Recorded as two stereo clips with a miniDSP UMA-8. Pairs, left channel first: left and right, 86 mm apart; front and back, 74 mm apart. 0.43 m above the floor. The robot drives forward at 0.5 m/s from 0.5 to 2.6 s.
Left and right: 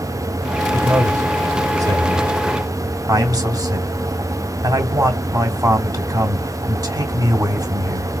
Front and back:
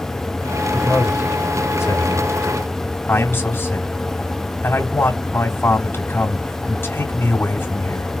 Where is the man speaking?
35° right, 2.5 m; by 8.1 s 55° right, 2 m.